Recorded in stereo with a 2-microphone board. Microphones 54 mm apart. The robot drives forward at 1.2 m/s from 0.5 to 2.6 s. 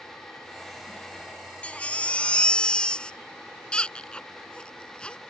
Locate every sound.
1.6 s a baby crying: 25° left (ahead or behind); by 5.2 s 20° left (ahead or behind)